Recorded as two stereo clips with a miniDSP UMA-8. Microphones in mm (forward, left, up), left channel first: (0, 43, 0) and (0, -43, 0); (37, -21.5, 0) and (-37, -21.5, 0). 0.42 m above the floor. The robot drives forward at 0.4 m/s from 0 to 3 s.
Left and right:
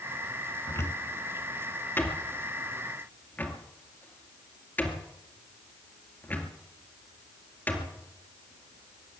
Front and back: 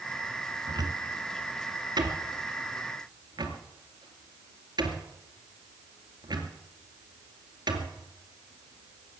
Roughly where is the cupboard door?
Behind left.